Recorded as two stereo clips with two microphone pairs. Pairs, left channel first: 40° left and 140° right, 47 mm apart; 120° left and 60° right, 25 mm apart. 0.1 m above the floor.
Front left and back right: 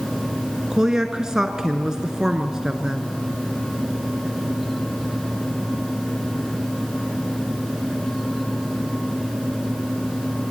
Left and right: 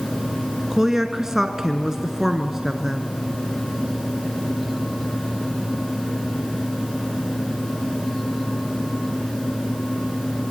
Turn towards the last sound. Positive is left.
turn(degrees=-80)